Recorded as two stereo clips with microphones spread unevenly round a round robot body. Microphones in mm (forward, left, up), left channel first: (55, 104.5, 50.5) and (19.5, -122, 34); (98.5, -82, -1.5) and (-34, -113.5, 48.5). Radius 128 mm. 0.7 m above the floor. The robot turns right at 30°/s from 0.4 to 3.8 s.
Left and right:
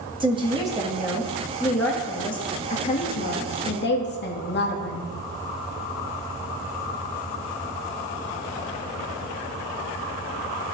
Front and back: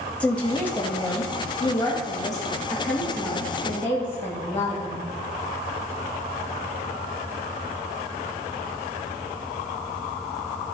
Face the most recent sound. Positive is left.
turn(degrees=60)